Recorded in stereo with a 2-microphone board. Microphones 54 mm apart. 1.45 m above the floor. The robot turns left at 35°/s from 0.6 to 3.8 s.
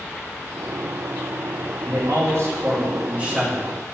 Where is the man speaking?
110° right, 1.1 m; by 3.7 s 175° right, 1.1 m.